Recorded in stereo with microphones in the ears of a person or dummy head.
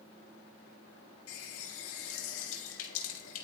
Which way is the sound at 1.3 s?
80° left.